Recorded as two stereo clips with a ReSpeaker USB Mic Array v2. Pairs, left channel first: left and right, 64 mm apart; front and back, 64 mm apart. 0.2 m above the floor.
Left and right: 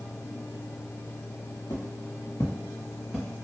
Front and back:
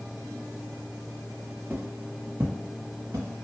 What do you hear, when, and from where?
1.7 s footsteps: 110° left, 0.9 m; by 3.4 s straight behind, 1.0 m